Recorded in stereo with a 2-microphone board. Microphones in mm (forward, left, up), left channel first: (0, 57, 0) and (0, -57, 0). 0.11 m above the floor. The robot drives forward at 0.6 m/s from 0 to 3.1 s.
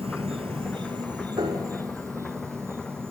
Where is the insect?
60° right (ahead or behind), 0.8 m; by 3.1 s 20° right (ahead or behind), 2 m.